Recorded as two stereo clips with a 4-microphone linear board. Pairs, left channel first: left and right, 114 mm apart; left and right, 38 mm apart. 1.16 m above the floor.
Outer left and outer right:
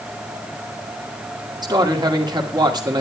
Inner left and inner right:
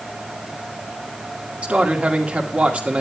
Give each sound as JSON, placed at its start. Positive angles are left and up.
{"t": 1.6, "sound": "a man speaking", "side_deg": -40, "distance_m": 2.0}